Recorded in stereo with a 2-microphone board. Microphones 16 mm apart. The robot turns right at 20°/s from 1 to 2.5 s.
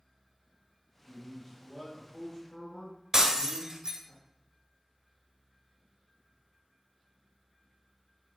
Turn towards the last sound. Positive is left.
turn(degrees=-35)  # may be behind; listen again after turning